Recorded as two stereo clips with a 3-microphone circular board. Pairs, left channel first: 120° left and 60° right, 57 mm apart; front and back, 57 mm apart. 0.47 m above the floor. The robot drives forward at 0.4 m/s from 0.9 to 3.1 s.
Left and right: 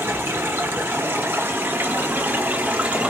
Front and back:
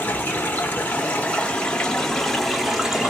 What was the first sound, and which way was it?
Running water, 40° right.